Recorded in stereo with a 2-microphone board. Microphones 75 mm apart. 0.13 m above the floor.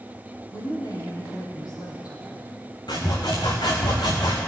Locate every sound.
0.5 s a woman speaking: 60° left (ahead or behind), 5 m
2.9 s sawing: 75° left (ahead or behind), 2.5 m